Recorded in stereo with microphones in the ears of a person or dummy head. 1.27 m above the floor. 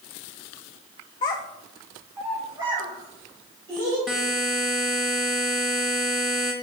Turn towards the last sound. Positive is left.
turn(degrees=0)  # may be behind; listen again after turning